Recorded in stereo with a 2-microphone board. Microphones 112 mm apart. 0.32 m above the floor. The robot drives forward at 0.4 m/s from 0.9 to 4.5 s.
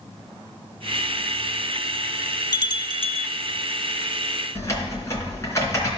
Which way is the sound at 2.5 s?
40° left (ahead or behind).